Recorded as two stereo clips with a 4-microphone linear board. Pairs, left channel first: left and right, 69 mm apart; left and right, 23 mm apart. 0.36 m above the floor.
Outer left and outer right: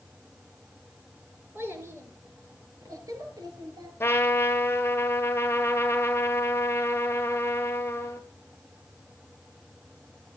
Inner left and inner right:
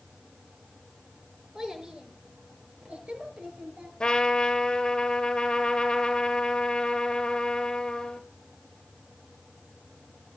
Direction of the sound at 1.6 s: 30° right (ahead or behind).